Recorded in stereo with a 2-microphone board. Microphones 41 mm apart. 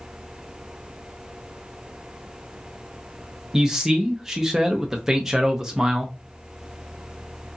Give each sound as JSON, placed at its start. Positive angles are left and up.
{"t": 3.5, "sound": "a man speaking", "side_deg": -10, "distance_m": 0.5}